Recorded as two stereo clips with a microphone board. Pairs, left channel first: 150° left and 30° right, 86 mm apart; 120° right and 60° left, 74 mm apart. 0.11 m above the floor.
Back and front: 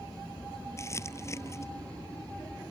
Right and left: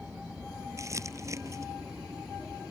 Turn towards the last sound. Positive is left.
turn(degrees=100)